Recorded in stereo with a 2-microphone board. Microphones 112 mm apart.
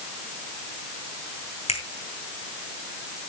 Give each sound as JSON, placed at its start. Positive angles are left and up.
{"t": 1.7, "sound": "a finger snap", "side_deg": 70, "distance_m": 3.5}